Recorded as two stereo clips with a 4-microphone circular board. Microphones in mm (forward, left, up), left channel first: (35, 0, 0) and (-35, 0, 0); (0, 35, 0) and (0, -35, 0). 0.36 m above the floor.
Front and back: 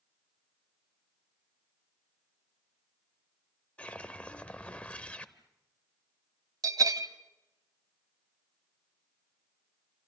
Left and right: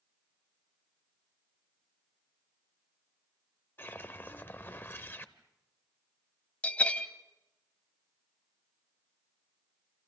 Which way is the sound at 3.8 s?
60° left.